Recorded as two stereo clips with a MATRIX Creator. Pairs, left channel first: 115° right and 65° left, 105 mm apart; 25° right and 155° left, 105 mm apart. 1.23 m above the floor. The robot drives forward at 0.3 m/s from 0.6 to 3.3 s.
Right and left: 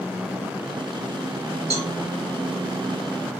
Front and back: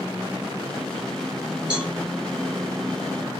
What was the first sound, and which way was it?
A cowbell, 80° left.